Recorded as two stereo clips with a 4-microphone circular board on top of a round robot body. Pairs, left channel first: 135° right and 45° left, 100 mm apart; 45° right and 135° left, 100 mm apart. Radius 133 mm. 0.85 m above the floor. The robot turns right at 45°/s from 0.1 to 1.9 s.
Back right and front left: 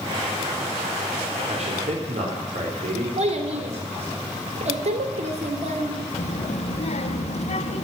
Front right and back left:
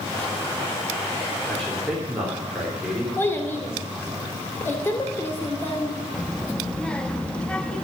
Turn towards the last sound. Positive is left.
turn(degrees=-125)